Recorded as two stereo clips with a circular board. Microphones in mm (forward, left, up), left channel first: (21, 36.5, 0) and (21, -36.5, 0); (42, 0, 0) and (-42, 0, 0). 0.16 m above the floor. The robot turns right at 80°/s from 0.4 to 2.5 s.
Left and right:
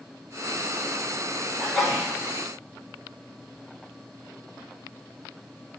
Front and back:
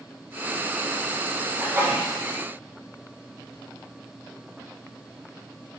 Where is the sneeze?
165° left, 1.3 m; by 2.1 s 155° right, 1.3 m.